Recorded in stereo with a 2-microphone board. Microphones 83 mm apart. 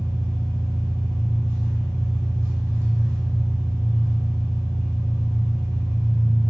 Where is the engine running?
35° right (ahead or behind), 1.6 m.